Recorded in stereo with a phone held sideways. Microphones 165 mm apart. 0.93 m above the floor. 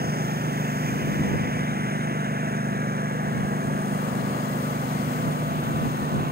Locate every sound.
0.0 s a lawn mower: 70° right (ahead or behind)